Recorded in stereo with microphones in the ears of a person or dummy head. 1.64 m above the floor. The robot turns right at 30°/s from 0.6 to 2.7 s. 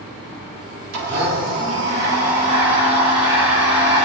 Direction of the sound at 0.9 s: 85° right.